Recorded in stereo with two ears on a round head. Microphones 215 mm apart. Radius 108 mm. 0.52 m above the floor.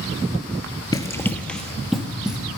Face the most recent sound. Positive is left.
turn(degrees=-5)  # may be behind; listen again after turning